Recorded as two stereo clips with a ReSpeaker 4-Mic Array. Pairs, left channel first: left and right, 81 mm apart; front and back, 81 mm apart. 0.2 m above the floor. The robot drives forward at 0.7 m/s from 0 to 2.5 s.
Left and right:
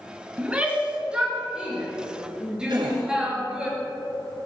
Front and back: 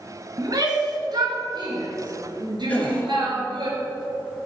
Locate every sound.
0.4 s a shout: 160° right, 2.5 m; by 3.7 s 170° right, 3.5 m
2.7 s a gasp: 70° right, 2.5 m